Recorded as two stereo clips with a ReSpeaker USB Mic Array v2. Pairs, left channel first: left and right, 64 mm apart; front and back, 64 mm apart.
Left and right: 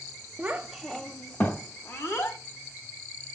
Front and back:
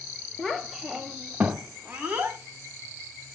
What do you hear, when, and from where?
0.4 s a child speaking: 75° right, 0.6 m; by 2.4 s 120° left, 1.1 m